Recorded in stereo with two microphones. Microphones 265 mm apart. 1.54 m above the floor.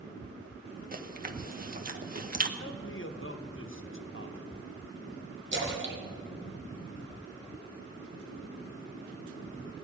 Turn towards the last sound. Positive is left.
turn(degrees=-45)  # may be behind; listen again after turning